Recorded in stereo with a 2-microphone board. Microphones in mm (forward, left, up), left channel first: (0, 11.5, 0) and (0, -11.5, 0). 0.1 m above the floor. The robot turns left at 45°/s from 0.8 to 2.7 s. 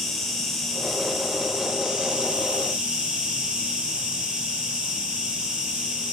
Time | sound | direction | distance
0.0 | an insect | 5° left | 1.1 m